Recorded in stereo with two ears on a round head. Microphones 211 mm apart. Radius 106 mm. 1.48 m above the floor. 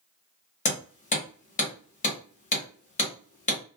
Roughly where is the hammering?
Left.